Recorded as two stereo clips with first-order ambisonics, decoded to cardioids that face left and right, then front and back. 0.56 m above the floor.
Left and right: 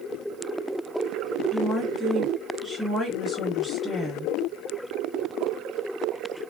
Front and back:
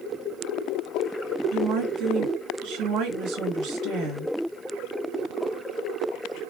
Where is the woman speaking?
175° left, 1.6 m.